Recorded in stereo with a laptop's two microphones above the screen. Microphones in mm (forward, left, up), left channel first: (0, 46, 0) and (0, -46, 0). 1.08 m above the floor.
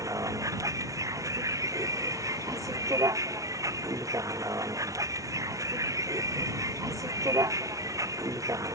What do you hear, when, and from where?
0.0 s a vehicle: 35° right (ahead or behind)